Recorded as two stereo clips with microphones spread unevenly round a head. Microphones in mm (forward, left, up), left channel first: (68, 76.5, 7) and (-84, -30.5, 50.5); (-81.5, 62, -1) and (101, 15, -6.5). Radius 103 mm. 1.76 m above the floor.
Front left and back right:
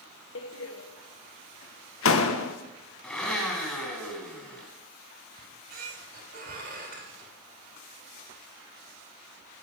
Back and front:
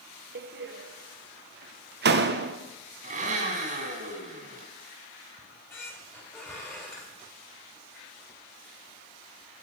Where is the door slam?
5° left, 1.1 m.